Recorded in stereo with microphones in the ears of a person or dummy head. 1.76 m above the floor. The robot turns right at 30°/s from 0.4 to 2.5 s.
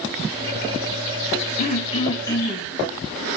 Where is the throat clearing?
40° left (ahead or behind), 2.0 m; by 2.7 s 15° left (ahead or behind), 2.0 m.